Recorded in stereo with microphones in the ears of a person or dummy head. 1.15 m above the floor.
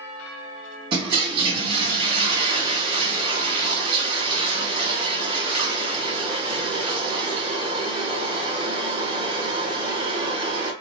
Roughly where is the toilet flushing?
Right.